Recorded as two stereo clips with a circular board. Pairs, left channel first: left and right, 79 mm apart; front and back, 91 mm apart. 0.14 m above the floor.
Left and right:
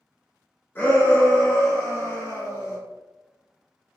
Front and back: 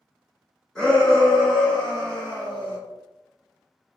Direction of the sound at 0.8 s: 70° left.